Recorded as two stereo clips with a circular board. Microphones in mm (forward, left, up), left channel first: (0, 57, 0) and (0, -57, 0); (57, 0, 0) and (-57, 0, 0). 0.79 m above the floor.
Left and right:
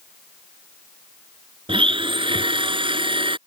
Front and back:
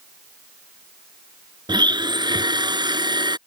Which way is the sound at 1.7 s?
130° right.